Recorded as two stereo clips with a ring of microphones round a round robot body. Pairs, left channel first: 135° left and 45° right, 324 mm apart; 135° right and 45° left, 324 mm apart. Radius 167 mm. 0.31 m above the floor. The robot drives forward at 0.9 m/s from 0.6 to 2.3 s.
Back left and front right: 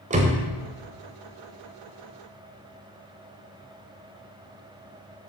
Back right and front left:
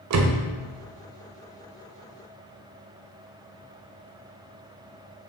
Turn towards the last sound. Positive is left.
turn(degrees=165)